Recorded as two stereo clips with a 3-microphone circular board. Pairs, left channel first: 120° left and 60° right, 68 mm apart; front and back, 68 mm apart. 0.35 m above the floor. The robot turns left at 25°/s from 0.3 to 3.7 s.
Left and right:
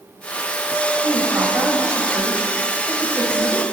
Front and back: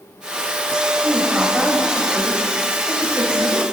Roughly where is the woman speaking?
Right.